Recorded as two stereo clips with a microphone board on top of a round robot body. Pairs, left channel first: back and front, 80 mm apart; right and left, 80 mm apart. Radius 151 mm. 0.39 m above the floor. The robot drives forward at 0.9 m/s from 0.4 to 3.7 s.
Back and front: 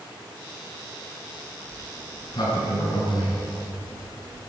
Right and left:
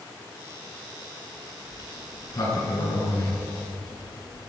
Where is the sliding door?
135° right, 5 m; by 4.5 s 145° right, 6.5 m.